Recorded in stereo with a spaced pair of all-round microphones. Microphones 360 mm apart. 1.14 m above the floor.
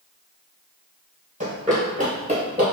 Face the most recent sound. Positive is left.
turn(degrees=-15)  # may be behind; listen again after turning